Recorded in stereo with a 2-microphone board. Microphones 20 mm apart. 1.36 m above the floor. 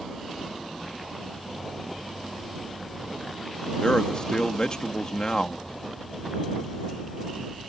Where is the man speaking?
40° left (ahead or behind).